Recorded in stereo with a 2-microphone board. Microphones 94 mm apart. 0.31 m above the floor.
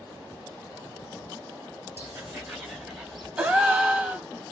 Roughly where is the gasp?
Centre.